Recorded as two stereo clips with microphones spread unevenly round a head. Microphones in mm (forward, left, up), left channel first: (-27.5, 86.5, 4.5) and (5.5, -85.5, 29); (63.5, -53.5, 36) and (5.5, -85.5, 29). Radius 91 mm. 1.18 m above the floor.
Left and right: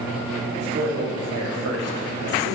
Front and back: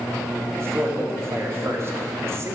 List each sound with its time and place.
0.6 s a man speaking: 100° right, 2 m